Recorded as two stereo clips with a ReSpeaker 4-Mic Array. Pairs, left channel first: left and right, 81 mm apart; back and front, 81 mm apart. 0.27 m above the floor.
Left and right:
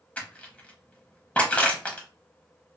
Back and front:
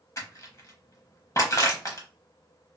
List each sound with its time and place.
0.2 s crushing: 155° left, 0.9 m